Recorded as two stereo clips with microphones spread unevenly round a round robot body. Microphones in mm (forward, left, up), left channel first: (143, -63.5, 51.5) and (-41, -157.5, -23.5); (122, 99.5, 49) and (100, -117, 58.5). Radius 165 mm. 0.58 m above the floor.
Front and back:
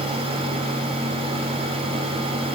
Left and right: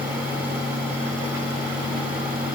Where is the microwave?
I don't hear a microwave.